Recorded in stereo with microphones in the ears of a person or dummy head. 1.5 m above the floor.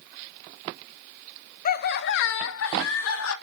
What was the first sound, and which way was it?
Laughter, 45° left (ahead or behind).